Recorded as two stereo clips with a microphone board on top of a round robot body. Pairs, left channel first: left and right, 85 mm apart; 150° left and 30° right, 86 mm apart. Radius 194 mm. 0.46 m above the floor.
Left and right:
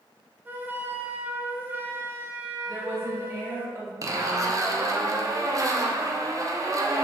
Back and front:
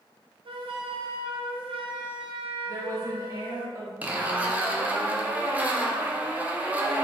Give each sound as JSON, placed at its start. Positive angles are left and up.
{"t": 0.5, "sound": "a flute", "azimuth_deg": -25, "distance_m": 0.6}
{"t": 2.7, "sound": "a woman speaking", "azimuth_deg": -55, "distance_m": 1.6}
{"t": 4.0, "sound": "a zipper", "azimuth_deg": -90, "distance_m": 0.8}